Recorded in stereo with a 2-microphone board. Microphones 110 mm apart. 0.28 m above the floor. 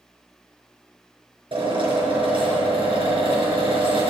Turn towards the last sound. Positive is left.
turn(degrees=-50)  # may be behind; listen again after turning